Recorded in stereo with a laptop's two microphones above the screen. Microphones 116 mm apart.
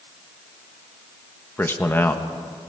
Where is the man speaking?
20° left (ahead or behind), 1.4 m.